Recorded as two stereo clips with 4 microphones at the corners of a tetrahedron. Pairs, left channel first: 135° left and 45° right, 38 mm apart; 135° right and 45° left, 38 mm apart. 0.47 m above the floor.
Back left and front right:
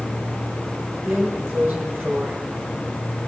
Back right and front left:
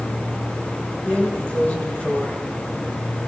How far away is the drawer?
About 4 m.